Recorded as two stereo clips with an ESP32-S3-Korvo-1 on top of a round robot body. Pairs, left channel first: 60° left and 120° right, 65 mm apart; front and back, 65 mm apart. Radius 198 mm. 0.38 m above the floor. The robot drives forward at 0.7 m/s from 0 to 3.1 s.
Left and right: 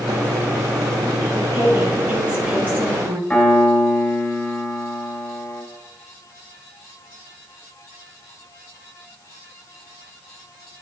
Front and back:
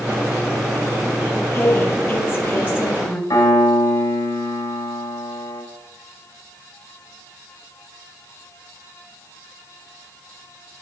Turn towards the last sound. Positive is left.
turn(degrees=-20)